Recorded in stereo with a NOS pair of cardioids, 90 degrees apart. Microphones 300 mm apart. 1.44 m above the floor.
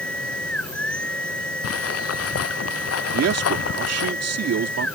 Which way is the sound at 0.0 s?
5° left.